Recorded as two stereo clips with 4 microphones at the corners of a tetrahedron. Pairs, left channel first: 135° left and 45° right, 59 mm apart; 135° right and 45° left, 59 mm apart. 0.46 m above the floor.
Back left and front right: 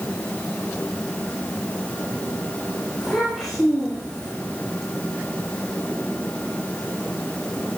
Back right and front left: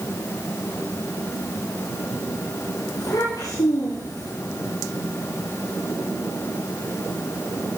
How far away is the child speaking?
About 9 m.